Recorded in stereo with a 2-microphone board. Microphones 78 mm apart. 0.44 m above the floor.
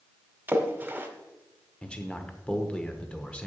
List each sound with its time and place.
0.5 s a splash: 20° right (ahead or behind), 1.2 m
1.8 s a man speaking: 15° left (ahead or behind), 1.0 m